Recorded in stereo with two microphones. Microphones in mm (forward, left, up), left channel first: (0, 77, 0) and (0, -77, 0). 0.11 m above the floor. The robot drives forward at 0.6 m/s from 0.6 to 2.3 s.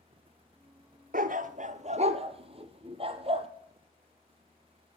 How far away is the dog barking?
About 0.7 m.